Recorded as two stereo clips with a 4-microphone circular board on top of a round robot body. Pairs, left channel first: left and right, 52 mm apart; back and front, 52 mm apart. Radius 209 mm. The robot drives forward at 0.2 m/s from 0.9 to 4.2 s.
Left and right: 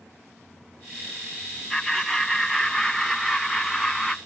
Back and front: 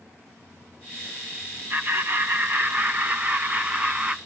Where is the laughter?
Straight ahead, 1.5 m; by 4.2 s 5° right, 1.3 m.